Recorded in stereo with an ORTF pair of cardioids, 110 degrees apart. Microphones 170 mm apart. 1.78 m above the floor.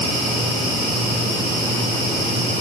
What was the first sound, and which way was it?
Only background noise.